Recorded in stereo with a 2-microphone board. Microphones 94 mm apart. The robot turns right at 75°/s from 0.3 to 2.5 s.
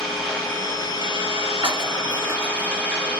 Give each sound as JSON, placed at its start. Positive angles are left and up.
{"t": 0.0, "sound": "an engine running", "azimuth_deg": 5, "distance_m": 0.9}
{"t": 1.6, "sound": "breaking glass", "side_deg": -60, "distance_m": 1.4}